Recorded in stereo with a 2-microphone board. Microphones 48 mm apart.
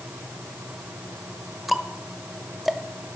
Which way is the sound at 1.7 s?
Centre (ahead or behind).